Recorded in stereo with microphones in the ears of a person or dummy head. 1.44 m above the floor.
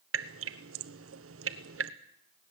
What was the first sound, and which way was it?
Dripping, 70° right (ahead or behind).